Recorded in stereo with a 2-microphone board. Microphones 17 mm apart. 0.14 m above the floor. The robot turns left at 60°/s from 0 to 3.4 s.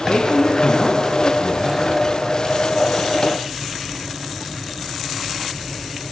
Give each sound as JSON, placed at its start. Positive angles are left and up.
{"t": 0.1, "sound": "a man speaking", "azimuth_deg": 75, "distance_m": 4.0}